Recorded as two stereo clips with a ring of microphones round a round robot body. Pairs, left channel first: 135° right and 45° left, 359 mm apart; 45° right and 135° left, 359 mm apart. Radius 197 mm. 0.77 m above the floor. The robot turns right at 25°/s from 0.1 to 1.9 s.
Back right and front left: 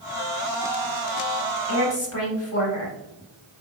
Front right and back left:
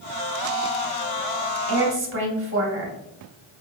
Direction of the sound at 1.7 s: Straight behind.